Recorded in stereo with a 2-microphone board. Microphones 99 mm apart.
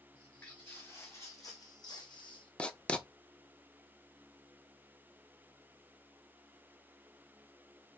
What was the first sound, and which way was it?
Footsteps, 15° left (ahead or behind).